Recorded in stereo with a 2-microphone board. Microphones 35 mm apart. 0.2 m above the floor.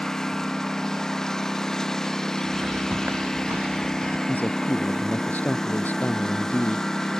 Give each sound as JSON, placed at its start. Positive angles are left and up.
{"t": 0.0, "sound": "a lawn mower", "side_deg": 10}
{"t": 2.4, "sound": "footsteps", "side_deg": -50}
{"t": 4.3, "sound": "a man speaking", "side_deg": 50}